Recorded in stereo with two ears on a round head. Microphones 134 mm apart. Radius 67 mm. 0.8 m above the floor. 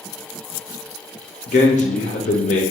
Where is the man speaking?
50° left (ahead or behind), 1.0 m.